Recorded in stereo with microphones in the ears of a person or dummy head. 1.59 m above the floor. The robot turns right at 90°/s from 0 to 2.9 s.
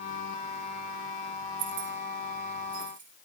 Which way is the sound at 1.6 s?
35° right (ahead or behind).